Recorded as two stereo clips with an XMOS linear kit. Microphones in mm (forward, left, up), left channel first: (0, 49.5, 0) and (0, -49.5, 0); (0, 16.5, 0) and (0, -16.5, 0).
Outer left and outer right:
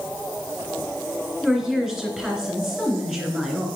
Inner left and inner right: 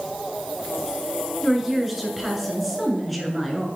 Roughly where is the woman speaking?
Centre.